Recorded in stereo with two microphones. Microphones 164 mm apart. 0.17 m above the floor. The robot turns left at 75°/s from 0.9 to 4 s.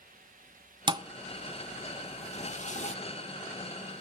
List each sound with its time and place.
0.9 s a thud: 30° right (ahead or behind), 0.6 m; by 3.0 s 45° left (ahead or behind), 0.6 m